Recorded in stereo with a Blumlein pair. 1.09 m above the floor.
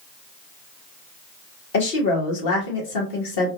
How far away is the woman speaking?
About 1.5 m.